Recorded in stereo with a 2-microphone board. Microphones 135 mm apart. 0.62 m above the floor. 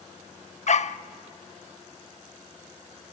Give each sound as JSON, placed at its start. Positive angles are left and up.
{"t": 0.7, "sound": "a dog barking", "side_deg": 60, "distance_m": 0.5}